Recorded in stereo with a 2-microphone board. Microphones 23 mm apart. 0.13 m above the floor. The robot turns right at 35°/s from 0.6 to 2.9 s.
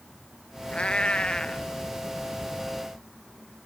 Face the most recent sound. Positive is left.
turn(degrees=-170)